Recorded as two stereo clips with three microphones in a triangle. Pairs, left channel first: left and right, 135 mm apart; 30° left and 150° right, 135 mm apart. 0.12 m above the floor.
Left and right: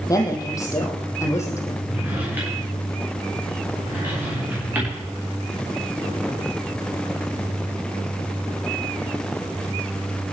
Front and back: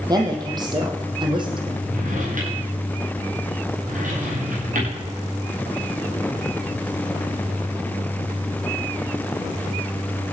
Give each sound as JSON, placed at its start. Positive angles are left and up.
{"t": 0.1, "sound": "a woman speaking", "azimuth_deg": 155, "distance_m": 4.5}
{"t": 1.9, "sound": "a drawer", "azimuth_deg": -165, "distance_m": 10.0}